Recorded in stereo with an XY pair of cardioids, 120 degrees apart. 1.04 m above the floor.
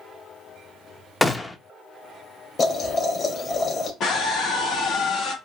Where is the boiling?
35° left, 1.9 m.